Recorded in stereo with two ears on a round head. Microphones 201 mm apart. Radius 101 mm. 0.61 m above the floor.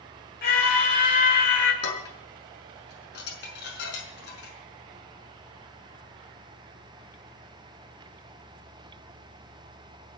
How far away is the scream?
About 3 m.